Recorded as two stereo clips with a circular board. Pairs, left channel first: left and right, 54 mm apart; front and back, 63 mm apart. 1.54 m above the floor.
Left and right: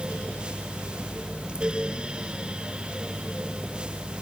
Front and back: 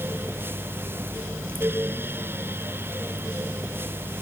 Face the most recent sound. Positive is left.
No sound to turn to.